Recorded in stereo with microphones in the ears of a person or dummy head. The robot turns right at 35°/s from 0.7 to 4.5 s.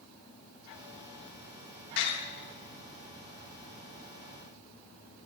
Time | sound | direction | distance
2.0 | a door slam | 60° left (ahead or behind) | 3 m